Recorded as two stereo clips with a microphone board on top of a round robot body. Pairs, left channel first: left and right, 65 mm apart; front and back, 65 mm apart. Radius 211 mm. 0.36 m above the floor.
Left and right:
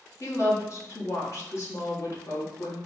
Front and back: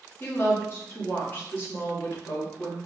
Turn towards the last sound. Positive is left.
turn(degrees=50)